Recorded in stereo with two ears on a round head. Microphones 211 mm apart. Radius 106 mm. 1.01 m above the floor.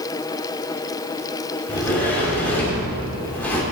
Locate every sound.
1.7 s a sliding door: 10° left (ahead or behind), 2.5 m